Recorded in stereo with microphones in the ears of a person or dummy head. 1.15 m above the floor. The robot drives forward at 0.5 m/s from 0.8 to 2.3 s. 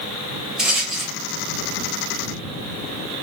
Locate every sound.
0.6 s a rattle: 5° right (ahead or behind), 0.6 m; by 1.1 s centre (ahead or behind), 0.8 m